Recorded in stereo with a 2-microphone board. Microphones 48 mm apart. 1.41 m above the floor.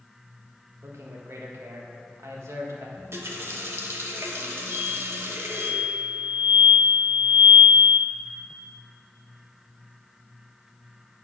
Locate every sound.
0.8 s a man speaking: 75° right (ahead or behind), 1.6 m
3.0 s a running tap: 60° right (ahead or behind), 1.1 m
4.7 s an explosion: 55° right (ahead or behind), 2 m